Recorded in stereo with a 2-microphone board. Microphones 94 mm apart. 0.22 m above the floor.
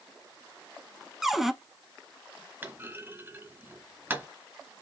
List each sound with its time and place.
1.2 s a cupboard door: 5° right (ahead or behind), 0.6 m
2.6 s a clunk: 20° right (ahead or behind), 1.2 m